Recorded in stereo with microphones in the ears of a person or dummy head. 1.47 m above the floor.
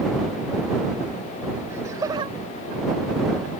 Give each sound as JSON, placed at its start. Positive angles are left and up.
{"t": 1.7, "sound": "laughter", "side_deg": -15}